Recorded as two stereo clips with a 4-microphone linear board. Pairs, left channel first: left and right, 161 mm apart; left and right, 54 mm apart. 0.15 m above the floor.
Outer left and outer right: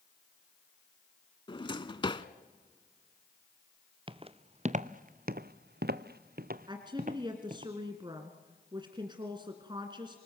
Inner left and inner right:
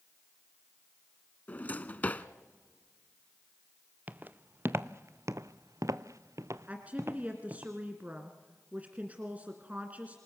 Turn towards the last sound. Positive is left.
turn(degrees=-30)  # may be behind; listen again after turning